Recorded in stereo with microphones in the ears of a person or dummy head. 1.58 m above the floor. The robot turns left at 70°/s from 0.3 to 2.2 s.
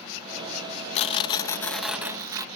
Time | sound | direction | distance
0.9 | tearing paper | 70° left | ?